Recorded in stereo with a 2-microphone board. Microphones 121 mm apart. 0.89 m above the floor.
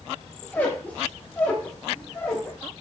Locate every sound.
0.4 s a squeak: 15° left (ahead or behind), 0.6 m